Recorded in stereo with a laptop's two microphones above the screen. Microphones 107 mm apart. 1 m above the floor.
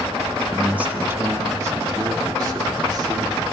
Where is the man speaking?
10° right (ahead or behind), 1.3 m; by 3.4 s 45° right (ahead or behind), 3 m.